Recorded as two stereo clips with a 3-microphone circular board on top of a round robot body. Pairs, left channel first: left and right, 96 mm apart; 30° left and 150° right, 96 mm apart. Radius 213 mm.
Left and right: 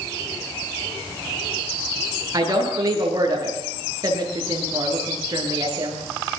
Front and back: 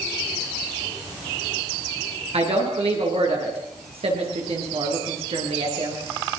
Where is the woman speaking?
140° right, 9.5 m.